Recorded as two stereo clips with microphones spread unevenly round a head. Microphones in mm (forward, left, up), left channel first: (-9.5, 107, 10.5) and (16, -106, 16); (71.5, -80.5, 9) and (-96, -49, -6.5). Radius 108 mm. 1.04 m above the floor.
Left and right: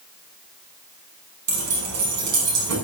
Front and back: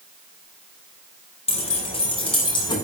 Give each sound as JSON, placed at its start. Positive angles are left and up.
{"t": 1.5, "sound": "keys jangling", "azimuth_deg": -65, "distance_m": 7.5}